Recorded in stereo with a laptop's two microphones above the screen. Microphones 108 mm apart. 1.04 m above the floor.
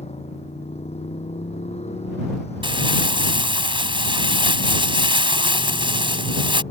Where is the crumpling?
55° right (ahead or behind).